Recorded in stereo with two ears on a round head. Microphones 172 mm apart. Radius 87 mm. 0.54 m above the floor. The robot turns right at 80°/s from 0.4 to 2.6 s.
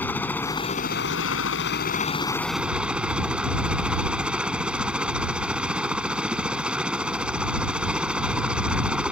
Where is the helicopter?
10° left; by 9.1 s 175° right.